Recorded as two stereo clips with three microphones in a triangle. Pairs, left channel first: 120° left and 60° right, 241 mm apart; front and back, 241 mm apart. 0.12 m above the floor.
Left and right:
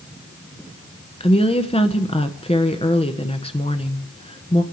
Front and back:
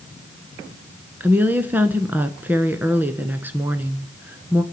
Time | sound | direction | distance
1.2 | a woman speaking | 110° left | 1.1 m